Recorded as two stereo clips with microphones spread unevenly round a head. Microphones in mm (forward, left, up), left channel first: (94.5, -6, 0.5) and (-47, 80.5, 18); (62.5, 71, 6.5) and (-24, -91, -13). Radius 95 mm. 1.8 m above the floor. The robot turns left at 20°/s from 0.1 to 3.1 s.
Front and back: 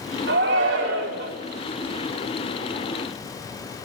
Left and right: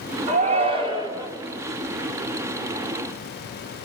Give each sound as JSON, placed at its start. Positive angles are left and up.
{"t": 0.3, "sound": "a shout", "azimuth_deg": -175, "distance_m": 4.5}